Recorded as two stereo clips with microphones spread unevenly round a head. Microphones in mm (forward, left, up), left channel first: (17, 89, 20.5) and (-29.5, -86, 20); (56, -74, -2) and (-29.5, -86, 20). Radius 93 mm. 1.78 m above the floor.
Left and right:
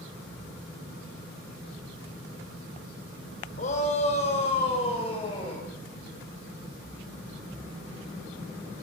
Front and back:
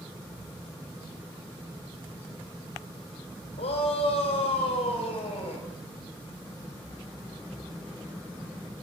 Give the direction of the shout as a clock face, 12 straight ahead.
11 o'clock.